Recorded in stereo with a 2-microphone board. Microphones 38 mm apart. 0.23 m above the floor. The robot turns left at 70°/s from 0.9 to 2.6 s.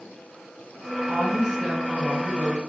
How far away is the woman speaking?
About 3.5 m.